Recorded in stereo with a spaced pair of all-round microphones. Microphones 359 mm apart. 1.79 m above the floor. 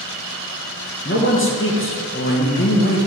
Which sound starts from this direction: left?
A man speaking, at 1.1 s.